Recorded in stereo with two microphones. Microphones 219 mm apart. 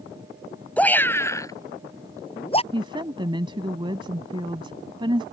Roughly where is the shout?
Centre.